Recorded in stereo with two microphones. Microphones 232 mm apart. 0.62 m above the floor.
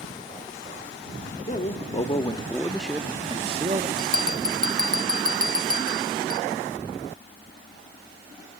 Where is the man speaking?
35° left (ahead or behind), 1.7 m; by 3.9 s 35° right (ahead or behind), 1.3 m.